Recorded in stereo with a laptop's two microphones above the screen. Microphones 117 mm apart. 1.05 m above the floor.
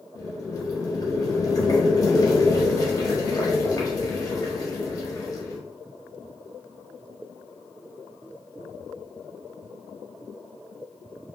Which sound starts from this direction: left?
Boiling, at 0.1 s.